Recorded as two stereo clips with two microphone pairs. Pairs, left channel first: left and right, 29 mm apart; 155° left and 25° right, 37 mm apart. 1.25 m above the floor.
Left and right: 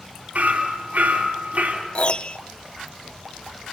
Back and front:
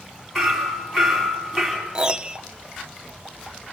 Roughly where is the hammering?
Behind right.